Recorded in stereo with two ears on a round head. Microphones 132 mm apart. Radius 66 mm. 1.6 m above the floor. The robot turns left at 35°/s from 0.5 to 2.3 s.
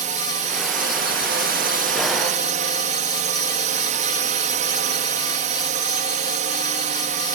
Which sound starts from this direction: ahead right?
A drone, at 0.0 s.